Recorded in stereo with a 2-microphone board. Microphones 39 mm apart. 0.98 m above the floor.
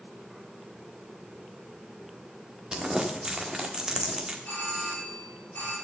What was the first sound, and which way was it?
Crumpling, 20° right (ahead or behind).